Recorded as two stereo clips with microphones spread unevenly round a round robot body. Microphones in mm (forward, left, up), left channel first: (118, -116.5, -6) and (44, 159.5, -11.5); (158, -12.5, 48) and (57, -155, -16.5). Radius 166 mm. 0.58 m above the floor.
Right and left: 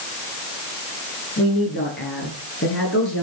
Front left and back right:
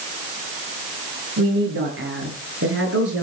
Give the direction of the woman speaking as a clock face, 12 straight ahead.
5 o'clock.